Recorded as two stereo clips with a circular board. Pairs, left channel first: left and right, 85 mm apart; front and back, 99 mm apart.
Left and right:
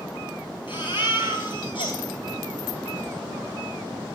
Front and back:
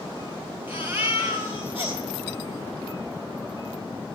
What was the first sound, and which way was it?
A baby crying, 115° left.